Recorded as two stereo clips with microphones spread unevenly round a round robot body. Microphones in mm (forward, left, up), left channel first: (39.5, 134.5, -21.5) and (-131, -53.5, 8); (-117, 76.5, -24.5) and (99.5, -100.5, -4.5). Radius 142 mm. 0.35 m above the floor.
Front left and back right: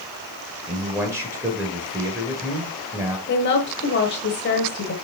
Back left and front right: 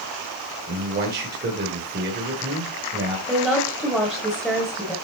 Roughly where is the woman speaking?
Ahead left.